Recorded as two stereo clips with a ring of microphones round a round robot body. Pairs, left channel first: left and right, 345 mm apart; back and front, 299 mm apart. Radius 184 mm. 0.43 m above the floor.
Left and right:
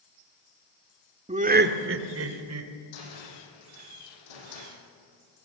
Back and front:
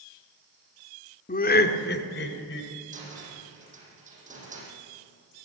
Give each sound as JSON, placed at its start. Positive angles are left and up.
{"t": 1.3, "sound": "laughter", "azimuth_deg": -145, "distance_m": 1.5}
{"t": 2.9, "sound": "a cupboard door", "azimuth_deg": 65, "distance_m": 8.0}